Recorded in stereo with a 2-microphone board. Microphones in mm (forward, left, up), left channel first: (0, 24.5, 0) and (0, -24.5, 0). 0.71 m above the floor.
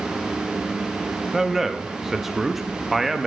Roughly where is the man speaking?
Centre.